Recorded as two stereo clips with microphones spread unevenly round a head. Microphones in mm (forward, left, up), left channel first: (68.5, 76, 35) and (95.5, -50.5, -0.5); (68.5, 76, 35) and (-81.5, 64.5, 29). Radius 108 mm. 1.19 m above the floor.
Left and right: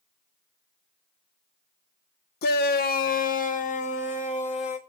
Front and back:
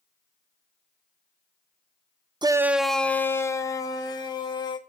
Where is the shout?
120° left, 0.5 m; by 4.8 s 65° left, 1.9 m.